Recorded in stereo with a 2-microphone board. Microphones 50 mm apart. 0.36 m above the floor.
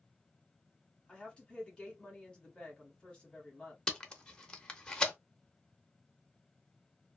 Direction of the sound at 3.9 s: 20° left (ahead or behind).